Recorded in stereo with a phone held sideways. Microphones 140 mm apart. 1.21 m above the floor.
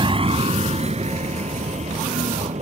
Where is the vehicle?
35° right (ahead or behind); by 2.6 s 55° right (ahead or behind).